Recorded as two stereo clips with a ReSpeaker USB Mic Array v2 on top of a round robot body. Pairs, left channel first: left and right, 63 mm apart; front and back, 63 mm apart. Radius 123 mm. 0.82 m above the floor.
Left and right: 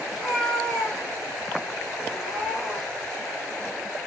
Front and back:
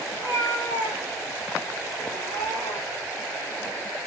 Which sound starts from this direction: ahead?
A cat meowing, at 0.1 s.